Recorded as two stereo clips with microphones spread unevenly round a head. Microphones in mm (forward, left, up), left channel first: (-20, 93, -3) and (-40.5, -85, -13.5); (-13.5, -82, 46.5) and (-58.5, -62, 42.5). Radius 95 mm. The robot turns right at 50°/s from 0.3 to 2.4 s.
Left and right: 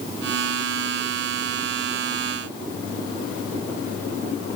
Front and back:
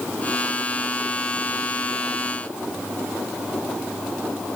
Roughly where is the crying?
No crying in this recording.